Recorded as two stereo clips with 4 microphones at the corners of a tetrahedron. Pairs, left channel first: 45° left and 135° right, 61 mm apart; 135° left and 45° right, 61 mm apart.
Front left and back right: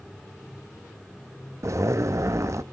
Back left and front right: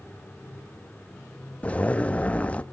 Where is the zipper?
160° right, 0.6 m.